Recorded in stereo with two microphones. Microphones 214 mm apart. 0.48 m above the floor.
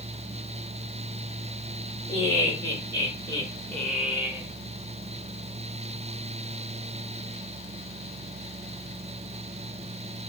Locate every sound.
2.1 s laughter: 55° left (ahead or behind), 2 m; by 4.5 s 20° right (ahead or behind), 1.4 m